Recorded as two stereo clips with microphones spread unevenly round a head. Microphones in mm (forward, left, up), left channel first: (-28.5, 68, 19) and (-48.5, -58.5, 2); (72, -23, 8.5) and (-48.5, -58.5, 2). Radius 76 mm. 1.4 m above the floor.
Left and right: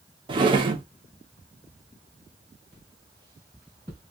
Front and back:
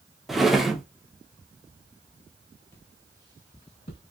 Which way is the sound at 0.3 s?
70° right.